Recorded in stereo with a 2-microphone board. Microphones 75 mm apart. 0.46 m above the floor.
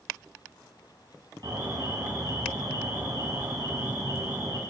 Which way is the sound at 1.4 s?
70° right (ahead or behind).